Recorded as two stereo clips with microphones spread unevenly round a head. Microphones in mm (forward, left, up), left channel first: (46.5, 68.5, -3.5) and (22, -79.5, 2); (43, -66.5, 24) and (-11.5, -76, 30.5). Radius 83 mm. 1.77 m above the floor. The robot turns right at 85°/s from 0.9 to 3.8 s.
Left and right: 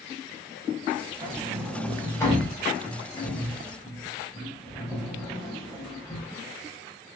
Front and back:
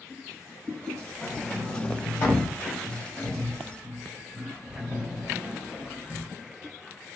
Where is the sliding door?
60° right, 1.1 m; by 6.3 s 160° left, 1.1 m.